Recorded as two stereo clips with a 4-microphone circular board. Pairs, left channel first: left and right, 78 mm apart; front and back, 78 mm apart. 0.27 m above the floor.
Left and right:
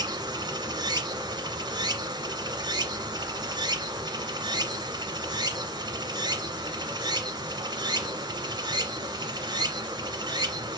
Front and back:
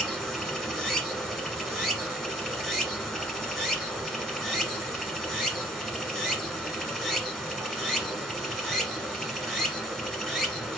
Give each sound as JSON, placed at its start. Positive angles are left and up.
{"t": 0.0, "sound": "running water", "azimuth_deg": -85, "distance_m": 1.3}